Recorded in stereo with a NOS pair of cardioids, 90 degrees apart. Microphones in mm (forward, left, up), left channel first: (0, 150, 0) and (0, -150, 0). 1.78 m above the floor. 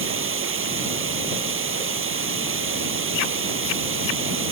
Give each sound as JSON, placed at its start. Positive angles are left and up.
{"t": 0.0, "sound": "running water", "azimuth_deg": -45}